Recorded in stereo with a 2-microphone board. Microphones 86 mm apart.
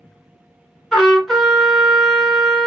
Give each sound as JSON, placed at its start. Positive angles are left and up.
{"t": 0.9, "sound": "a trumpet", "side_deg": 5, "distance_m": 1.5}